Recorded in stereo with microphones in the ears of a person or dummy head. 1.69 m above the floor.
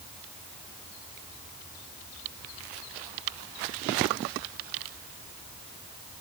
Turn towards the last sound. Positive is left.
No sound to turn to.